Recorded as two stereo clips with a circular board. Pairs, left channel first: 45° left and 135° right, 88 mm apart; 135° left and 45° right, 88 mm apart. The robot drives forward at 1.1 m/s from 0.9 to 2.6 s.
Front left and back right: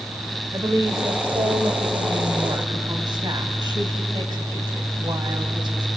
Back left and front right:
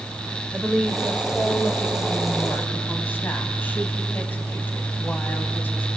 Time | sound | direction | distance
0.5 | a woman speaking | 125° right | 1.8 m